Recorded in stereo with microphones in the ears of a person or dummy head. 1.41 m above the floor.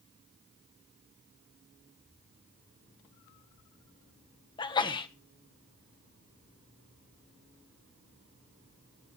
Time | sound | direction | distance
4.6 | a sneeze | 25° left (ahead or behind) | 1.4 m